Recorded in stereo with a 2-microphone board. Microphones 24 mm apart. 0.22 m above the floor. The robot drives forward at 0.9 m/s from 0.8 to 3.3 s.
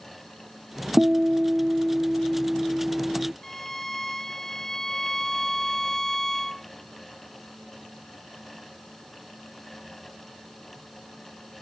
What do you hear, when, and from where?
1.0 s a guitar: 85° right; by 3.3 s 30° right (ahead or behind)
3.4 s a violin: 15° left (ahead or behind)